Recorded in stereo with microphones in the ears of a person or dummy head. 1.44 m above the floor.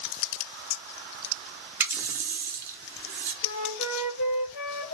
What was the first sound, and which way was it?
A running tap, 20° right (ahead or behind).